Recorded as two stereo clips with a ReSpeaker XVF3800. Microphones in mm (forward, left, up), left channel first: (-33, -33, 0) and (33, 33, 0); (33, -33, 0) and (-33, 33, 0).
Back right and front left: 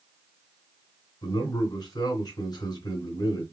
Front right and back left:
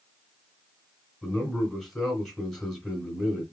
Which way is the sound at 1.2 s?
135° right.